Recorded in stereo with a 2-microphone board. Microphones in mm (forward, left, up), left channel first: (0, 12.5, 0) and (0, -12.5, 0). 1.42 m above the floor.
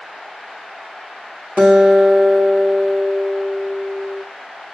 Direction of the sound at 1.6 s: 70° right (ahead or behind).